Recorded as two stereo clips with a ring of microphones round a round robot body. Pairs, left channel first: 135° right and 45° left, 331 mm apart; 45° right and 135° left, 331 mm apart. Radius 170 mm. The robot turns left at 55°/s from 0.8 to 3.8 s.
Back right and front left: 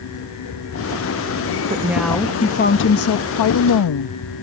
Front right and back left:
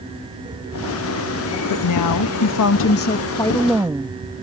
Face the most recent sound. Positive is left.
turn(degrees=-140)